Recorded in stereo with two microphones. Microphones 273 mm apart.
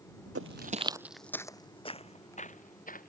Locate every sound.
0.3 s footsteps: 55° right (ahead or behind); by 3.1 s 30° left (ahead or behind)